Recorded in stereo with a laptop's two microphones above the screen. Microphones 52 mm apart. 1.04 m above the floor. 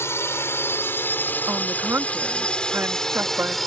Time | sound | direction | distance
0.0 | a drone | 60° left (ahead or behind) | ?
1.5 | a woman speaking | 50° right (ahead or behind) | ?